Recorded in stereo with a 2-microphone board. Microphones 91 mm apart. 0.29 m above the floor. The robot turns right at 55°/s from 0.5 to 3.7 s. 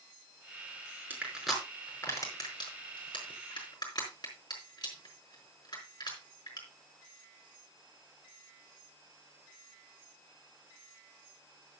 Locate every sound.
1.1 s crushing: 20° right (ahead or behind), 4.5 m; by 6.6 s 55° left (ahead or behind), 4.5 m